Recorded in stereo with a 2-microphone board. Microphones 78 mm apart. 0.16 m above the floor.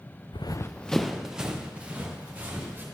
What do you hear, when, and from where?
0.3 s running footsteps: 75° left (ahead or behind), 0.6 m; by 2.8 s 20° right (ahead or behind), 3.5 m